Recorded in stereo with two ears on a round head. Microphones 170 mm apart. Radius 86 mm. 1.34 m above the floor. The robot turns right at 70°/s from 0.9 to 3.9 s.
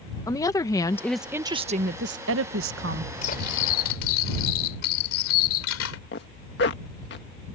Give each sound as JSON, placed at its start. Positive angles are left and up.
{"t": 0.3, "sound": "a woman speaking", "azimuth_deg": 160}
{"t": 3.2, "sound": "cutlery clinking", "azimuth_deg": 40}
{"t": 6.1, "sound": "a zipper", "side_deg": 60}